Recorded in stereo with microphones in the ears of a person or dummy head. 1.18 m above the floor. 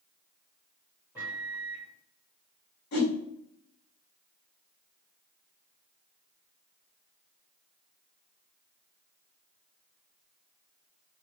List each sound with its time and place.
1.1 s a microwave: 10° right (ahead or behind), 1.2 m
2.9 s a whoosh: 50° left (ahead or behind), 1.7 m